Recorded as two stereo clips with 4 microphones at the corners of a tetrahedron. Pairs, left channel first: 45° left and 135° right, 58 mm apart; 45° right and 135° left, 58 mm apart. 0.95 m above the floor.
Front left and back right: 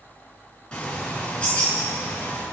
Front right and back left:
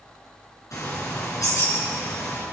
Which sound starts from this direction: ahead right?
A bird, at 0.7 s.